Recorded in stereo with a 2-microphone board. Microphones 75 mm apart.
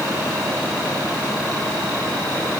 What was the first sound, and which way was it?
Only background noise.